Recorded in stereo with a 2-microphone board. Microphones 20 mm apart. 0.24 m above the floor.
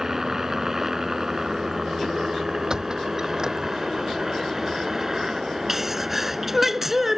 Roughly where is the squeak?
Right.